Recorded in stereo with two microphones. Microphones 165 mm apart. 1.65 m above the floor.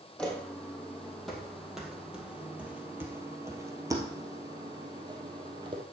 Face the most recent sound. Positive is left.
turn(degrees=-30)  # may be behind; listen again after turning